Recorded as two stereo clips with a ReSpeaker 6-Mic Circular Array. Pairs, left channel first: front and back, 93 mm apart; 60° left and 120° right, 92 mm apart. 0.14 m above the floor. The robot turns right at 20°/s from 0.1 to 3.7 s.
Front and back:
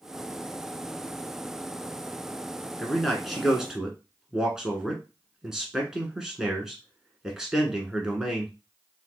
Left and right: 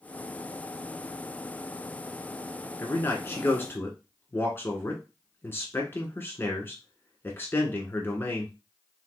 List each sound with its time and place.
2.8 s a man speaking: 85° left, 1.2 m; by 8.5 s 100° left, 1.2 m